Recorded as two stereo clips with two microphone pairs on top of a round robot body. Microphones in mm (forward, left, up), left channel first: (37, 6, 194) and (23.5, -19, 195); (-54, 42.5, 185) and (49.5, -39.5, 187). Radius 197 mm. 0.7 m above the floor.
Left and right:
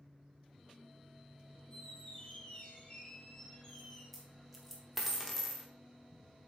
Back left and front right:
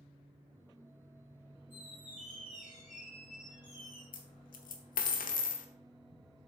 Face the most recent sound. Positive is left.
turn(degrees=155)